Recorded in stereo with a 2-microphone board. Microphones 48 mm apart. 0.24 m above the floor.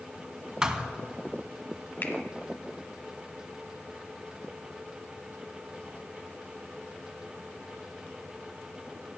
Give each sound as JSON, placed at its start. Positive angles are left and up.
{"t": 0.6, "sound": "a thud", "side_deg": -15, "distance_m": 0.6}
{"t": 2.0, "sound": "a finger snap", "side_deg": 40, "distance_m": 1.1}